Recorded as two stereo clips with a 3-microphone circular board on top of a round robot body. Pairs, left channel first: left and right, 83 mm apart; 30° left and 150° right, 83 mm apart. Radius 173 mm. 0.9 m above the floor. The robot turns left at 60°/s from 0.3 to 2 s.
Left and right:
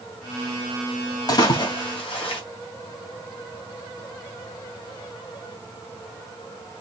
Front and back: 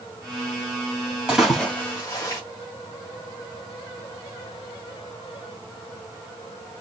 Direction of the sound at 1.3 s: 130° left.